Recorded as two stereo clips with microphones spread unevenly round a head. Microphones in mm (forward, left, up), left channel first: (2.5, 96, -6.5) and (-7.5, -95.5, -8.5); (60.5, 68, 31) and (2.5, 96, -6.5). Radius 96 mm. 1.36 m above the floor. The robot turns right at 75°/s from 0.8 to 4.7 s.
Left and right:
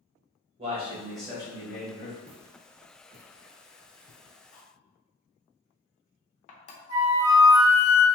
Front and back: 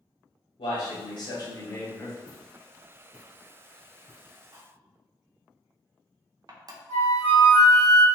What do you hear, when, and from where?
0.6 s a man speaking: 35° right, 1.3 m; by 2.2 s 70° left, 1.3 m
2.3 s footsteps: 170° right, 1.9 m; by 4.4 s 55° left, 1.7 m
4.5 s cutlery clinking: 95° left, 0.6 m; by 6.8 s 110° left, 0.6 m
6.9 s a flute: 80° right, 1.0 m